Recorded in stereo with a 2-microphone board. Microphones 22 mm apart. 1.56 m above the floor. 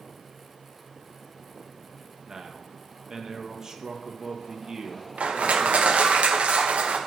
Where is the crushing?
80° right, 1.2 m.